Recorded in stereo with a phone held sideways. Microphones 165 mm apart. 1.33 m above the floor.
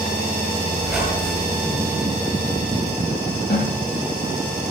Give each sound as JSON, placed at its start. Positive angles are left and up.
{"t": 0.8, "sound": "a squeak", "side_deg": 0, "distance_m": 6.0}
{"t": 3.5, "sound": "a snare drum", "side_deg": 60, "distance_m": 10.0}